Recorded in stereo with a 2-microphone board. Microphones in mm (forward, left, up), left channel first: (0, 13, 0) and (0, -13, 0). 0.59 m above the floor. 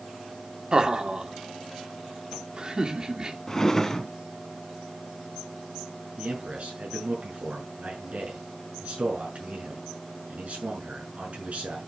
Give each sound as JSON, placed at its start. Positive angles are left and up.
{"t": 0.7, "sound": "laughter", "side_deg": -30, "distance_m": 1.8}
{"t": 3.5, "sound": "a drawer", "side_deg": 20, "distance_m": 1.1}
{"t": 6.2, "sound": "a man speaking", "side_deg": -65, "distance_m": 6.5}